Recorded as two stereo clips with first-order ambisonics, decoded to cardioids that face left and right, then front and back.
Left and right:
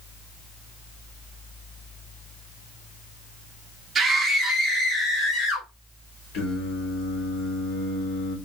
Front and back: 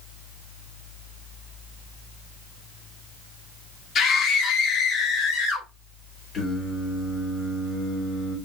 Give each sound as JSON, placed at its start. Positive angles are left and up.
{"t": 4.0, "sound": "a scream", "azimuth_deg": -30, "distance_m": 0.6}
{"t": 6.3, "sound": "singing", "azimuth_deg": 65, "distance_m": 2.5}